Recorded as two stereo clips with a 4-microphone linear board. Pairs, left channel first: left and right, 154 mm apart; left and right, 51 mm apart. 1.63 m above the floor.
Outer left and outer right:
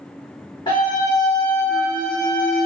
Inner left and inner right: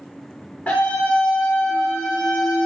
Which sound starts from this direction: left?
A scream, at 0.7 s.